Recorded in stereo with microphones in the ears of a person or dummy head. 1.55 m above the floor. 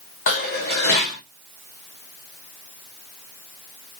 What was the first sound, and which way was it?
Dishes clattering, 45° left (ahead or behind).